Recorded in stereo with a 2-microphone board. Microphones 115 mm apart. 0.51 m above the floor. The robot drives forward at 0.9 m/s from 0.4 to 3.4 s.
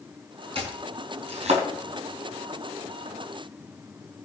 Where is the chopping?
55° right (ahead or behind), 4 m; by 1.6 s 70° right (ahead or behind), 3.5 m.